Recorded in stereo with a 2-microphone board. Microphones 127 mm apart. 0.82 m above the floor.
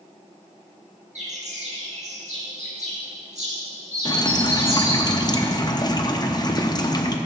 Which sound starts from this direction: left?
Dripping, at 4.0 s.